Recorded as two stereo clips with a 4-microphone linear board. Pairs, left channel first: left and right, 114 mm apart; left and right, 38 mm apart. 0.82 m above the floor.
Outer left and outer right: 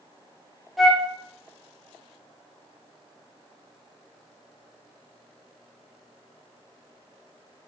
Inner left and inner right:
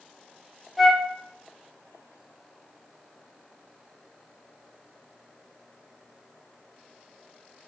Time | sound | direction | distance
0.8 | a flute | 5° right (ahead or behind) | 0.6 m